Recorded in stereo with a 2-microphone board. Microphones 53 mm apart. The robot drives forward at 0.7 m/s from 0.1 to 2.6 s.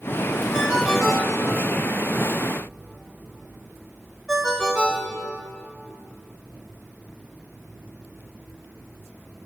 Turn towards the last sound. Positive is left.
turn(degrees=-10)  # may be behind; listen again after turning